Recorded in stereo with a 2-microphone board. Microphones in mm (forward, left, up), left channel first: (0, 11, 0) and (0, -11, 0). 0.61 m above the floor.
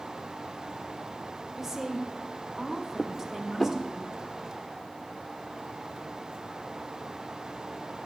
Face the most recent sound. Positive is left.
turn(degrees=10)  # may be behind; listen again after turning